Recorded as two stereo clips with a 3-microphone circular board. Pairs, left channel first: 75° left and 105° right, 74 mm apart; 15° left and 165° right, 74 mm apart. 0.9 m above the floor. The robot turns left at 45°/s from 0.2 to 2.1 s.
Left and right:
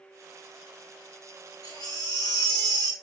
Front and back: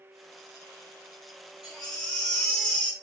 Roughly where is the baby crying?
Left.